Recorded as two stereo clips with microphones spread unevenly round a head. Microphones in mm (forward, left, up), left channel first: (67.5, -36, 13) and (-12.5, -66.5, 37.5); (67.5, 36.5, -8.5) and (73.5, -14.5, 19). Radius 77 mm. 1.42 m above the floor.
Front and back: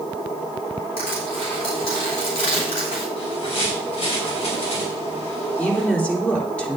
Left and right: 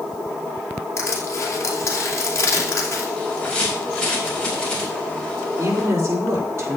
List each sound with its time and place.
1.0 s crushing: 60° left, 3 m
3.2 s a bird: 25° left, 4.5 m
5.6 s a woman speaking: 55° right, 3.5 m